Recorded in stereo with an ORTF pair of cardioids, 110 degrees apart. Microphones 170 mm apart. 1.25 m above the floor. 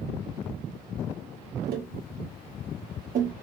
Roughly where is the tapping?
Ahead right.